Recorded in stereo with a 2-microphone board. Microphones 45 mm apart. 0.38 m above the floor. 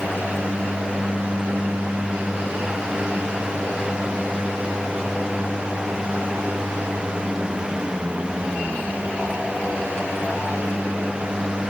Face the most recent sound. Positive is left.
No sound to turn to.